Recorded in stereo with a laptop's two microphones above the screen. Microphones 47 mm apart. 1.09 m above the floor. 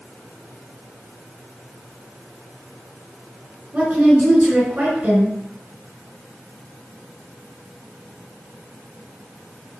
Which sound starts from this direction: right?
A woman speaking, at 3.7 s.